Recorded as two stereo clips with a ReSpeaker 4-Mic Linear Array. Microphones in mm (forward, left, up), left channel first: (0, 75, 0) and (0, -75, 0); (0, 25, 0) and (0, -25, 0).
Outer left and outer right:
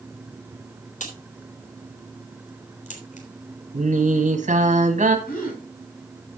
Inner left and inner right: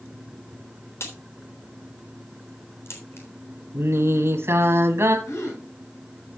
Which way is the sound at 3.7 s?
55° right (ahead or behind).